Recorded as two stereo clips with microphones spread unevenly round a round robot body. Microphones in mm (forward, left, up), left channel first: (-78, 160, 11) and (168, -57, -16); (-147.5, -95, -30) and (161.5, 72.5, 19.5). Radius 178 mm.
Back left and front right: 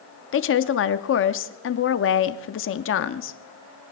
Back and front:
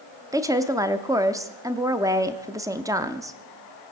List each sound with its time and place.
0.3 s a woman speaking: 115° left, 0.7 m